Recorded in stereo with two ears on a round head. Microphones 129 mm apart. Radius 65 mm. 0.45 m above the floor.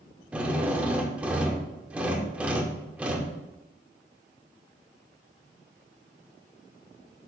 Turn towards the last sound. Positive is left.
turn(degrees=-10)  # may be behind; listen again after turning